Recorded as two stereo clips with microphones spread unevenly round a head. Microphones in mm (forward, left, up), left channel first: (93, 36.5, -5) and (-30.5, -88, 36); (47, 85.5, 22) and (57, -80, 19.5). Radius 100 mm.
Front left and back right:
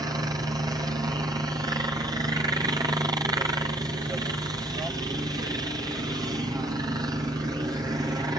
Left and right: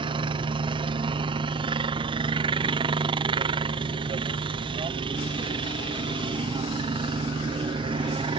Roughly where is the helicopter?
Ahead right.